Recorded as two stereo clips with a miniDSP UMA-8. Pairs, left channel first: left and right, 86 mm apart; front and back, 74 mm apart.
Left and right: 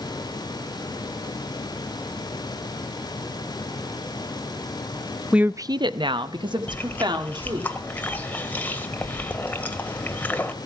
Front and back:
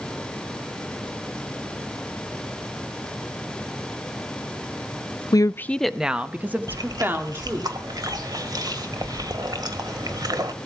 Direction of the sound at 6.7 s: 160° left.